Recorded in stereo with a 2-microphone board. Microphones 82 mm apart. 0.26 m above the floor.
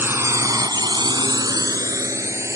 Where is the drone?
25° right (ahead or behind); by 2.6 s 35° right (ahead or behind).